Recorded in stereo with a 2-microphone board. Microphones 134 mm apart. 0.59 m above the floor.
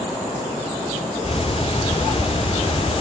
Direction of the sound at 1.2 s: 45° left (ahead or behind).